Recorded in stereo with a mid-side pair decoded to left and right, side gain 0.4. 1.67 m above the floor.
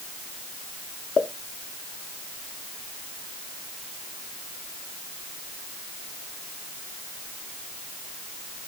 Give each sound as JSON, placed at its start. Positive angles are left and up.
{"t": 1.2, "sound": "a pop", "azimuth_deg": 50, "distance_m": 0.7}